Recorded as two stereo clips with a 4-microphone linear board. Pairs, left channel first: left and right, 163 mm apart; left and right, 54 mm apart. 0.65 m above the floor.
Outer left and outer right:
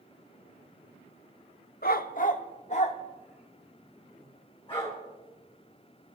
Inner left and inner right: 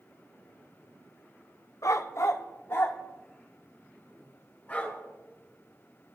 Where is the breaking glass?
I don't hear breaking glass.